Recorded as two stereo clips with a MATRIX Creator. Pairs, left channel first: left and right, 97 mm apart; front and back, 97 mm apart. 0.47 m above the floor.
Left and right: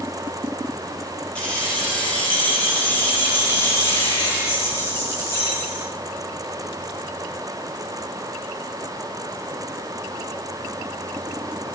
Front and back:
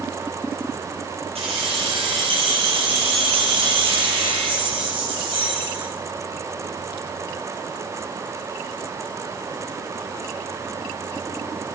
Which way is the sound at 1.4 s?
170° left.